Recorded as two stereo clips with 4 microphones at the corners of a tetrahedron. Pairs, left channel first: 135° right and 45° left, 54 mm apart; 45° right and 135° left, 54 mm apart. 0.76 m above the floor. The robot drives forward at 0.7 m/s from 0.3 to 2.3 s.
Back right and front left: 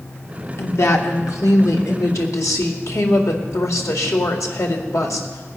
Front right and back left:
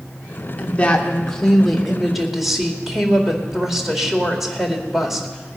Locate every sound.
0.6 s a woman speaking: 105° right, 1.3 m; by 5.6 s 140° right, 2.0 m